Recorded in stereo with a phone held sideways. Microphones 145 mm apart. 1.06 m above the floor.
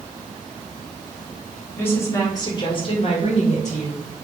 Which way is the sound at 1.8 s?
15° left (ahead or behind).